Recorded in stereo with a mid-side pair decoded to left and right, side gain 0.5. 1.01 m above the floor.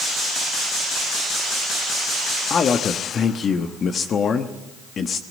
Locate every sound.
2.5 s a man speaking: 45° left, 1.2 m